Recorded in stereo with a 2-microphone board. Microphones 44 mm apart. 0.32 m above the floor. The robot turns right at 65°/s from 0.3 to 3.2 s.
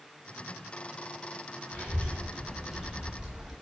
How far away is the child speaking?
About 0.6 m.